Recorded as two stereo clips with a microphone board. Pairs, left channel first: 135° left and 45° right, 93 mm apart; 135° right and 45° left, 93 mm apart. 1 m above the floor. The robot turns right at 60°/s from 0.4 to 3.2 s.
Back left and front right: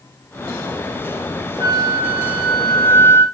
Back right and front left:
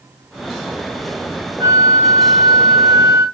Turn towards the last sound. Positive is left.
turn(degrees=85)